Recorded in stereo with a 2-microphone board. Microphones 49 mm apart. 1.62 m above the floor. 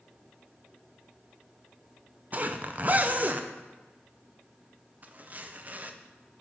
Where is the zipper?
35° right (ahead or behind), 0.6 m.